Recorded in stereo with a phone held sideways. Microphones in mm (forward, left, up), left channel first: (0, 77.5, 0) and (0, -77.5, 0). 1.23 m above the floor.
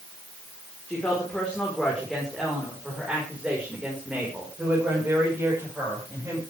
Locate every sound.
0.9 s a woman speaking: 10° left (ahead or behind), 4.5 m; by 6.4 s 20° right (ahead or behind), 6 m